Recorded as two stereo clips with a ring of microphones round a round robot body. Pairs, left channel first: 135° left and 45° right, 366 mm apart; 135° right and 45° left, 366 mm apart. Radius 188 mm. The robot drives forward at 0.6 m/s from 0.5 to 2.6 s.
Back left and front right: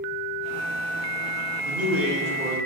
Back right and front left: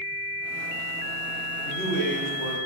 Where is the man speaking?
75° right, 1.5 m; by 2.6 s 105° right, 1.4 m.